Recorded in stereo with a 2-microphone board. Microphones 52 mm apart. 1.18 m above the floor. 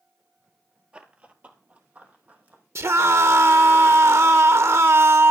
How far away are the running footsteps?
About 1.3 m.